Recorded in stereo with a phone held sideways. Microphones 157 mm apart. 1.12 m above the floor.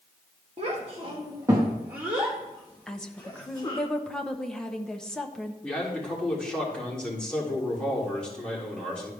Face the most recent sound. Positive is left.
turn(degrees=5)  # may be behind; listen again after turning